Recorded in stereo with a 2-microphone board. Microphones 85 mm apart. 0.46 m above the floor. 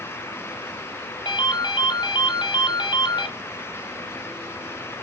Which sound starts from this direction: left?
A ringtone, at 1.2 s.